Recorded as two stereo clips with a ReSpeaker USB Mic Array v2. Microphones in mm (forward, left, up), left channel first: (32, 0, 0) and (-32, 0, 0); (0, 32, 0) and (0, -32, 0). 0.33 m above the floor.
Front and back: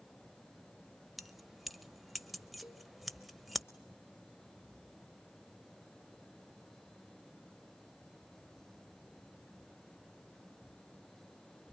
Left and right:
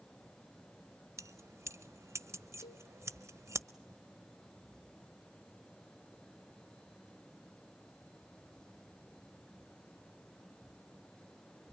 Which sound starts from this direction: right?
Keys jangling, at 1.2 s.